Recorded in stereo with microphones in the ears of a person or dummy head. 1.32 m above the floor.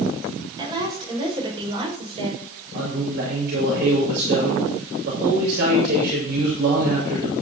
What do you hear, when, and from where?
0.6 s a woman speaking: 25° right (ahead or behind), 7 m; by 2.5 s 35° right (ahead or behind), 6 m
2.7 s a man speaking: 60° right (ahead or behind), 6.5 m